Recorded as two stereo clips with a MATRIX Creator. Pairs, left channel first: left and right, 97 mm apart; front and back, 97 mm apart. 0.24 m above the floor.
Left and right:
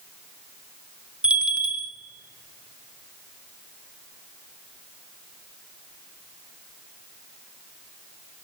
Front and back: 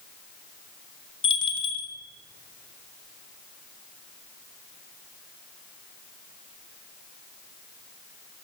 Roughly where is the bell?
Ahead.